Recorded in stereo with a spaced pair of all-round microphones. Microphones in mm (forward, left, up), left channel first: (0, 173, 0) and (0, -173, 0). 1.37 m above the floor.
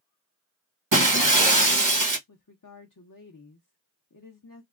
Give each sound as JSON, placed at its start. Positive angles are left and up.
{"t": 0.9, "sound": "breaking glass", "side_deg": -65, "distance_m": 1.1}
{"t": 2.3, "sound": "a woman speaking", "side_deg": 65, "distance_m": 0.7}